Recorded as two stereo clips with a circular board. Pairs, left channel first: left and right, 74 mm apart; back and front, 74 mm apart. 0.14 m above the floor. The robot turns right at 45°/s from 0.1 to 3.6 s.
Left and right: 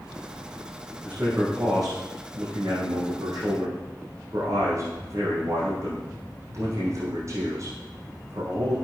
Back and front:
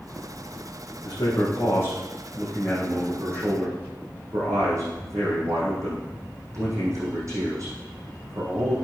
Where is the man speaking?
160° right, 5.5 m; by 8.8 s 40° right, 5.5 m.